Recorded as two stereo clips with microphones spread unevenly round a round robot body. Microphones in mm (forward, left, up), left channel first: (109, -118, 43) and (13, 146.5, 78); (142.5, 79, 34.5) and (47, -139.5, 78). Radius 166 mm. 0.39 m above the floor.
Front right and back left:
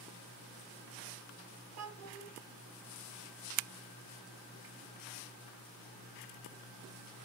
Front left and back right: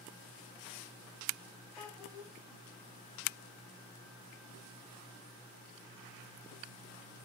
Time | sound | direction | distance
1.8 | a child speaking | 150° left | 0.9 m